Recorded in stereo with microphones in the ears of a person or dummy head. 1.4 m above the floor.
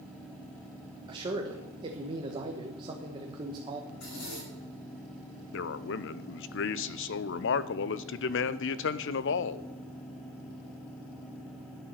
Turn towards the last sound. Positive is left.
turn(degrees=60)  # may be behind; listen again after turning